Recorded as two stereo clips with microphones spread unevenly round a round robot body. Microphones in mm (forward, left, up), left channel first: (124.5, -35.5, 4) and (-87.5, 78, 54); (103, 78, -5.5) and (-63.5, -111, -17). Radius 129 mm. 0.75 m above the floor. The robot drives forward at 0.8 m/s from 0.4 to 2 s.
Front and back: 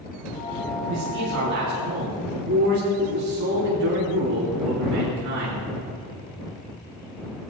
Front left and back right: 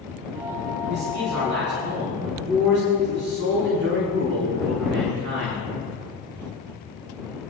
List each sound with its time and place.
0.9 s a man speaking: 165° right, 6.5 m